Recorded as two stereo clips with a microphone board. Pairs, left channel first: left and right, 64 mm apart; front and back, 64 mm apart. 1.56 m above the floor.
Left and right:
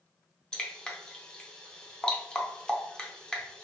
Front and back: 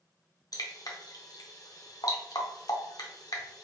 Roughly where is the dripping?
Ahead.